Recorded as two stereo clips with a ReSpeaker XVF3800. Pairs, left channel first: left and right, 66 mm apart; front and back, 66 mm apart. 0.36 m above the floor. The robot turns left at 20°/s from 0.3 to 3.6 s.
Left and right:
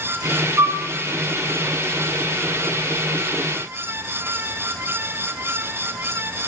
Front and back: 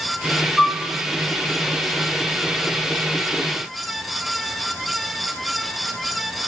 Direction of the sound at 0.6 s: 95° right.